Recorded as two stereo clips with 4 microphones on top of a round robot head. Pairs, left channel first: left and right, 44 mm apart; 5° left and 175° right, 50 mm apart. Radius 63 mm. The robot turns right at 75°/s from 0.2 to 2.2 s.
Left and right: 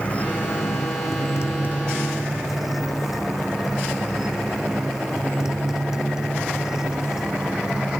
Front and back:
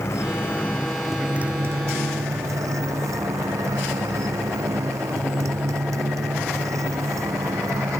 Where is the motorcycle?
30° left; by 8.0 s 165° right.